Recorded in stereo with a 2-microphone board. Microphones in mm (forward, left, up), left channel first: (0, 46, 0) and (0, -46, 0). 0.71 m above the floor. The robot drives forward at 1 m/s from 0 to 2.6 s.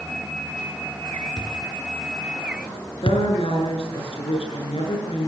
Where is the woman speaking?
85° left, 8 m.